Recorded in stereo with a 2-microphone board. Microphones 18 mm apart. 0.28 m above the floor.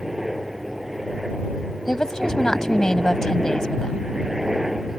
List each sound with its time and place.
0.0 s a helicopter: 15° right (ahead or behind); by 5.0 s 20° right (ahead or behind)
1.9 s a woman speaking: 35° left (ahead or behind)